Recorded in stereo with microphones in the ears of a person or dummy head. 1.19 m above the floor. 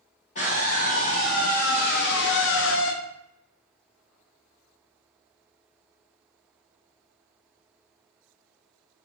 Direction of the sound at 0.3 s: 40° left (ahead or behind).